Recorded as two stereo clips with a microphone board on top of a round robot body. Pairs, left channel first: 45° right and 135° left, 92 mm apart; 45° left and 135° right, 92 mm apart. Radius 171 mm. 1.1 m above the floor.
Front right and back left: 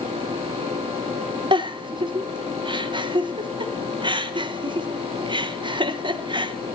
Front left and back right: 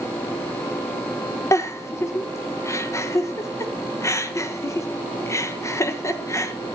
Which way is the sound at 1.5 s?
105° left.